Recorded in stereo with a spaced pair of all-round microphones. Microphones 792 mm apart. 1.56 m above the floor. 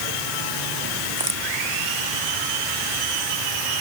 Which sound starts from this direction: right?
A crack, at 1.2 s.